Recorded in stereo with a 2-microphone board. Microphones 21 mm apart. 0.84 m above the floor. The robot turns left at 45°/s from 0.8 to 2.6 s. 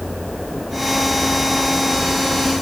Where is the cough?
No cough in this recording.